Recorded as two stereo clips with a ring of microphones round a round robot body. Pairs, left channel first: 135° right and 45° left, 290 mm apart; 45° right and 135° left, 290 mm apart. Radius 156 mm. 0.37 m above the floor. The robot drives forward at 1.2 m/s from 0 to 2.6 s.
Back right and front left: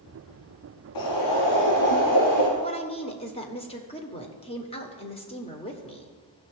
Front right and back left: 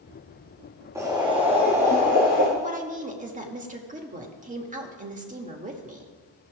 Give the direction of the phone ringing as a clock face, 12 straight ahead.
No phone ringing in this recording.